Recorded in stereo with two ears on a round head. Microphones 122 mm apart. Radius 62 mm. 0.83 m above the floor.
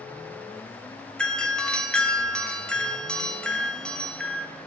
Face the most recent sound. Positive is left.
turn(degrees=5)  # may be behind; listen again after turning